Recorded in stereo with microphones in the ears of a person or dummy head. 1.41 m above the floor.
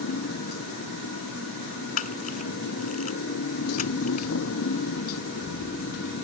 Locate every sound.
0.0 s a motorcycle: 85° left
2.0 s a camera shutter: 45° left (ahead or behind)